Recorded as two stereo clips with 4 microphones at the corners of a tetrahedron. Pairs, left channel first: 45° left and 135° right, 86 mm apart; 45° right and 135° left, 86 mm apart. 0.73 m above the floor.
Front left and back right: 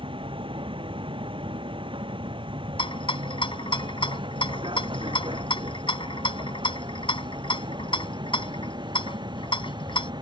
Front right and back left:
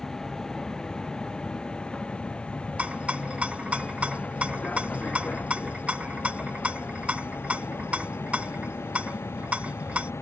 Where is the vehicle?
130° right; by 10.2 s 105° right.